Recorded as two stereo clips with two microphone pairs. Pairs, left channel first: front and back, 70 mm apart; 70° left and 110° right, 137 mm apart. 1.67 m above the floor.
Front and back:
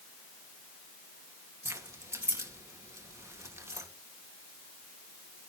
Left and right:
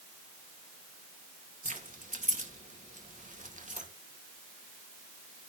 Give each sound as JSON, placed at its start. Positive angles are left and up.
{"t": 1.6, "sound": "keys jangling", "azimuth_deg": -130, "distance_m": 1.8}